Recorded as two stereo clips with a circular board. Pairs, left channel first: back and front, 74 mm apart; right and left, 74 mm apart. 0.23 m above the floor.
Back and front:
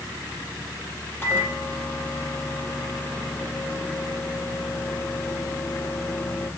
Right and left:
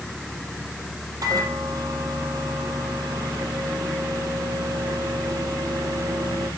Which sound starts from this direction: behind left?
A microwave, at 1.2 s.